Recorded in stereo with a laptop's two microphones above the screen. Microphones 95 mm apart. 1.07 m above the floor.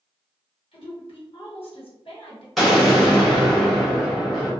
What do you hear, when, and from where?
0.7 s a woman speaking: 65° left (ahead or behind), 1.1 m
2.6 s an explosion: centre (ahead or behind), 1.3 m